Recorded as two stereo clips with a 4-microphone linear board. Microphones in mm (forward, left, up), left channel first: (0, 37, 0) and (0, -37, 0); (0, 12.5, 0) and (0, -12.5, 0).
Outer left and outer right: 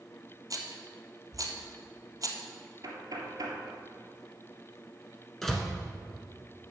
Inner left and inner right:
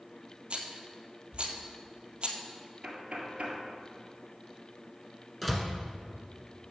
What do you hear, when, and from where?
0.5 s a rattle: 55° right (ahead or behind), 1.1 m
2.8 s knocking: 60° right (ahead or behind), 1.8 m
5.4 s a door slam: 5° left (ahead or behind), 1.2 m